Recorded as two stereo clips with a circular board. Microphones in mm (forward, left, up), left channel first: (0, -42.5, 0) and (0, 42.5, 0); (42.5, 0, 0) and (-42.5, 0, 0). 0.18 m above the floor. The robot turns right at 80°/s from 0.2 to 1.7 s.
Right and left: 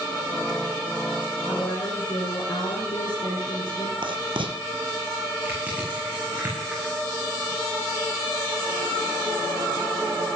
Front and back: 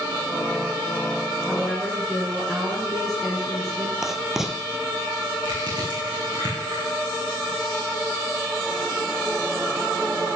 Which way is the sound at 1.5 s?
110° right.